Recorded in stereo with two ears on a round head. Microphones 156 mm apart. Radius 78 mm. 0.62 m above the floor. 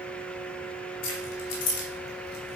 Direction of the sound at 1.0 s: 80° left.